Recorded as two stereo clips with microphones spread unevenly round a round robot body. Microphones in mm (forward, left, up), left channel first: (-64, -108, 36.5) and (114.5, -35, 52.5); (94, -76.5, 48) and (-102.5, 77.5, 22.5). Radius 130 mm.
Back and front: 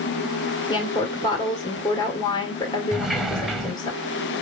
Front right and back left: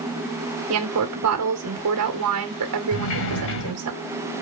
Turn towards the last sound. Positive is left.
turn(degrees=-65)